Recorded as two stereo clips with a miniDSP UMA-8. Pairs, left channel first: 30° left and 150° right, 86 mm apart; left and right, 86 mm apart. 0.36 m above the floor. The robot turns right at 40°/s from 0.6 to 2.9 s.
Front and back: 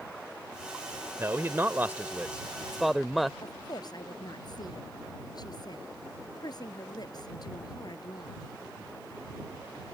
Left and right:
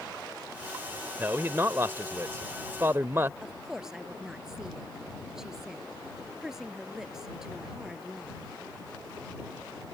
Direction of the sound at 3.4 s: 5° right.